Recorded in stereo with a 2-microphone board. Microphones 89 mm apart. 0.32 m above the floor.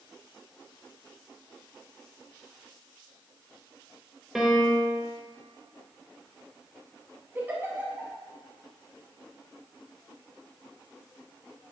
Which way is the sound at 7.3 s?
25° right (ahead or behind).